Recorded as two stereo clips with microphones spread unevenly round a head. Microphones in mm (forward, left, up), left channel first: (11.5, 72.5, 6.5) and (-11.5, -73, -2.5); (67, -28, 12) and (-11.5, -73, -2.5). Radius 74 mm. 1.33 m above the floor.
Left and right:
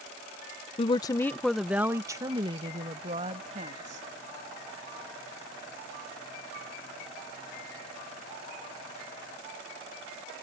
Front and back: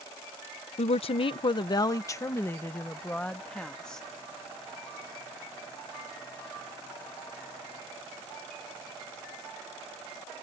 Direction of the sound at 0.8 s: 25° left.